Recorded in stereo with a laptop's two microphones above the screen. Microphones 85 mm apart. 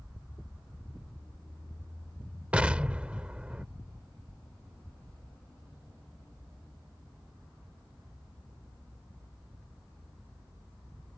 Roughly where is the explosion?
Centre.